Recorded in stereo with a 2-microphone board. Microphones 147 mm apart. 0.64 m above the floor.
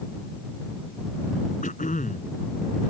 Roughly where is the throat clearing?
Left.